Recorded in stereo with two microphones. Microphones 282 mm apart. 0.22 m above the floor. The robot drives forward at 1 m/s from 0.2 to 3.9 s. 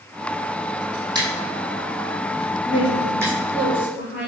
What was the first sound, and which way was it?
Scissors, 15° right (ahead or behind).